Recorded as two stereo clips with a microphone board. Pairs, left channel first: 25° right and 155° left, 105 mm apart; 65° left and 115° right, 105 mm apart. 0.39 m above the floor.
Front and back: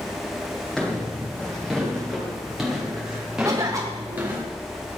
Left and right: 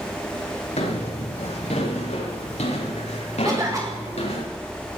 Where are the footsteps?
60° left, 9.5 m; by 4.5 s 85° left, 5.5 m.